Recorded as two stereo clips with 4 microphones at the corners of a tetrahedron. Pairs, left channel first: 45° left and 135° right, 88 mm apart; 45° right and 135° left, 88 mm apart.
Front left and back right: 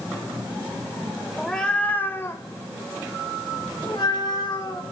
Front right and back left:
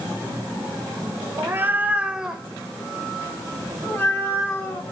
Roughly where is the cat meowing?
Behind left.